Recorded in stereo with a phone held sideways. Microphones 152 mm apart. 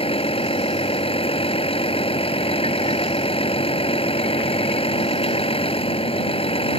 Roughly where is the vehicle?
Left.